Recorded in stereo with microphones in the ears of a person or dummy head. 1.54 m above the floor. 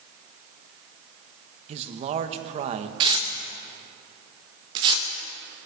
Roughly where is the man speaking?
Right.